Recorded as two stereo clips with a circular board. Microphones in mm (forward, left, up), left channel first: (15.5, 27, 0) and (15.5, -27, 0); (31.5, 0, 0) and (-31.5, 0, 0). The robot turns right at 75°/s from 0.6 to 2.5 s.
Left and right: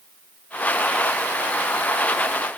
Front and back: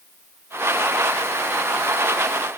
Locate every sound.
Only background noise.